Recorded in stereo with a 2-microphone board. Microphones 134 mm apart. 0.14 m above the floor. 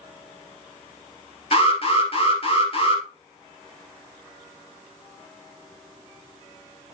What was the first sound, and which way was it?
An alarm, 45° left (ahead or behind).